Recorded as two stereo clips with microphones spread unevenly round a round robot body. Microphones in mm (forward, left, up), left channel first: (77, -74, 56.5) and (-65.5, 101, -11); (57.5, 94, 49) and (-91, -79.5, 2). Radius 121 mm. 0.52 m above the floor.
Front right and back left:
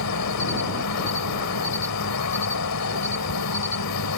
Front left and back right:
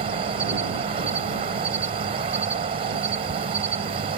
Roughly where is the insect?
Right.